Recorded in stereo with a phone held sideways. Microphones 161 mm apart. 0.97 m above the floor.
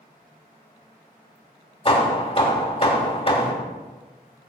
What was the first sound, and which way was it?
Hammering, 35° left (ahead or behind).